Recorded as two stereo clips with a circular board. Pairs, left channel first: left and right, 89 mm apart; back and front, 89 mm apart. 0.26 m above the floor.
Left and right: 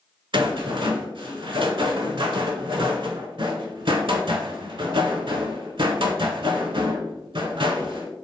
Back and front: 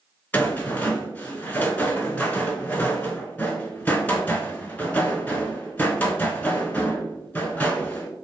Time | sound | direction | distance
0.3 | a rattle | 110° right | 0.5 m